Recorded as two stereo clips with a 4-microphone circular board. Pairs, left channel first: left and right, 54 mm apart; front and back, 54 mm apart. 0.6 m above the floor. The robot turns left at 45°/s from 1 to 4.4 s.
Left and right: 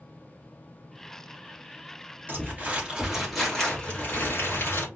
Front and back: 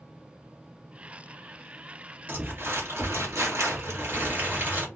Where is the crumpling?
135° right, 2.5 m; by 4.9 s 130° left, 2.5 m.